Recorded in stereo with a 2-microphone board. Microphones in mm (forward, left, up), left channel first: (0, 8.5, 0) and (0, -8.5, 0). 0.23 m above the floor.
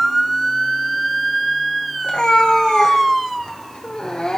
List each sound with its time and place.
2.0 s a cat meowing: 85° left, 2 m; by 4.4 s 50° left (ahead or behind), 1.3 m